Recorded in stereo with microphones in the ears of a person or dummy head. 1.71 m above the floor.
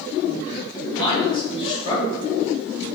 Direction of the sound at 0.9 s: 25° left (ahead or behind).